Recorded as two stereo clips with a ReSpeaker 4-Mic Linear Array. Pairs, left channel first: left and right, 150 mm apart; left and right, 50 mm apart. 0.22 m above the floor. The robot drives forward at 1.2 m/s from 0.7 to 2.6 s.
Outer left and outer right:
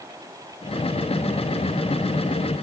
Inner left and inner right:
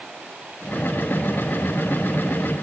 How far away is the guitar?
I don't hear a guitar.